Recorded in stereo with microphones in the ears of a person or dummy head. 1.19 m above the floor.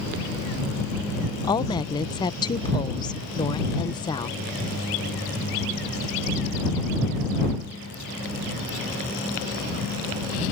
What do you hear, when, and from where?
1.4 s a woman speaking: 20° left (ahead or behind)